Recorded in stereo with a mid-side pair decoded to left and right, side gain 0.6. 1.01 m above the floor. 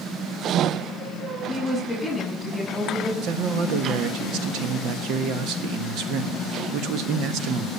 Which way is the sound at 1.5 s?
10° left.